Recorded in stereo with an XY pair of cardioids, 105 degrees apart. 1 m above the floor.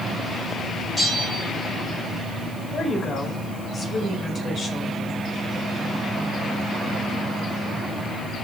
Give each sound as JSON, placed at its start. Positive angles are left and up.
{"t": 1.0, "sound": "a bell", "azimuth_deg": 20, "distance_m": 7.0}
{"t": 2.7, "sound": "a woman speaking", "azimuth_deg": 40, "distance_m": 5.0}